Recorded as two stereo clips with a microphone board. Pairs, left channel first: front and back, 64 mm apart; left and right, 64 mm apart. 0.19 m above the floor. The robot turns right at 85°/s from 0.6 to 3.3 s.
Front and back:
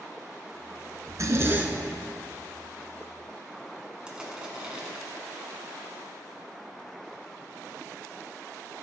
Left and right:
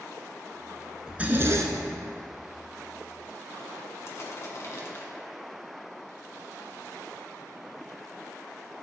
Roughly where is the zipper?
Behind.